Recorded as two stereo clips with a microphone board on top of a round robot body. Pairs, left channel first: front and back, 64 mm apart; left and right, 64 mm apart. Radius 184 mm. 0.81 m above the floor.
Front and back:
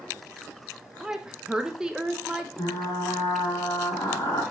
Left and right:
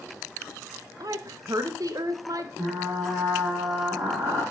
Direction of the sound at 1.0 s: 100° right.